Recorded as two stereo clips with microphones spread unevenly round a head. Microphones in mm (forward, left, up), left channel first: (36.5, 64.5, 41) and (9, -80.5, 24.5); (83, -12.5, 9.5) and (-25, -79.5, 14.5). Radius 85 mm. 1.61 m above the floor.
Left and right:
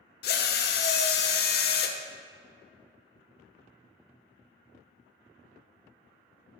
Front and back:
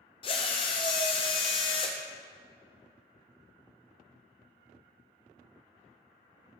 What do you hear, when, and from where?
0.2 s a drill: 90° left, 0.8 m